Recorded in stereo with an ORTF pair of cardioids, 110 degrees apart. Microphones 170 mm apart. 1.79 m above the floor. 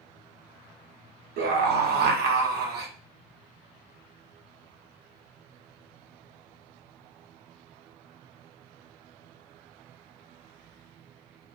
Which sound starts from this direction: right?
A scream, at 1.4 s.